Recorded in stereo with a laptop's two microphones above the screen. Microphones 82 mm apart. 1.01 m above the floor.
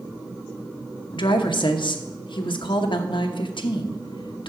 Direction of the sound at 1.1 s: 75° left (ahead or behind).